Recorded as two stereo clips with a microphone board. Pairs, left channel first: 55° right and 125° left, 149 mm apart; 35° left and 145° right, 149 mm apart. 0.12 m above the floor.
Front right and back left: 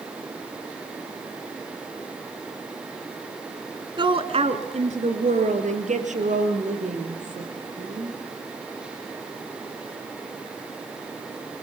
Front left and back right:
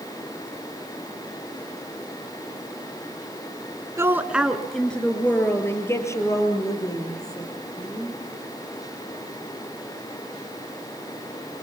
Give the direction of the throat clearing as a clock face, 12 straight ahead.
I don't hear throat clearing.